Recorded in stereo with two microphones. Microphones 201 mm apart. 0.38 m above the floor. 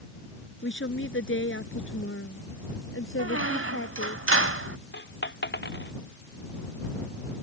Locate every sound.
0.6 s a woman speaking: 65° left (ahead or behind); by 4.2 s 80° left
3.2 s a squeak: 75° right (ahead or behind)
4.9 s a dropped coin: 60° left (ahead or behind)